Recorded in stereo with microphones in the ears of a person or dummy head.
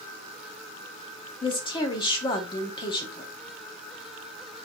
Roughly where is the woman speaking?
Left.